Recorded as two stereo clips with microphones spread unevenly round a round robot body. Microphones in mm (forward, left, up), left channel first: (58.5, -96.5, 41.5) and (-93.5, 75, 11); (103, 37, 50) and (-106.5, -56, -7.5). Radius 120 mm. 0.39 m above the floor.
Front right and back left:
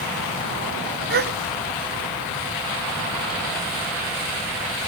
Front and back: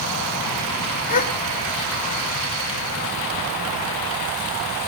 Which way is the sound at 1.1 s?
80° left.